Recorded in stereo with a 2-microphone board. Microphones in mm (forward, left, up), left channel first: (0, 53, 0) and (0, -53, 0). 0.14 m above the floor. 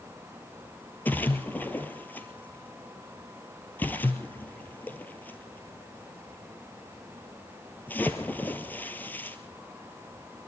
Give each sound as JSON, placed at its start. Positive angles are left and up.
{"t": 1.1, "sound": "a splash", "side_deg": 15, "distance_m": 1.5}